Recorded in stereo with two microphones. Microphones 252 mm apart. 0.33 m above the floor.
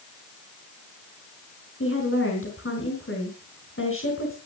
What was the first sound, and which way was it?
A woman speaking, 55° left (ahead or behind).